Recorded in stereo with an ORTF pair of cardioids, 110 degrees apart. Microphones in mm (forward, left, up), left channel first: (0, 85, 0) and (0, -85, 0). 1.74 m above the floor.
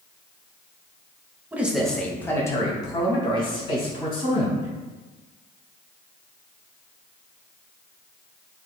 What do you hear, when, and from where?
1.5 s a man speaking: 10° right, 0.9 m; by 4.7 s 35° left, 3.5 m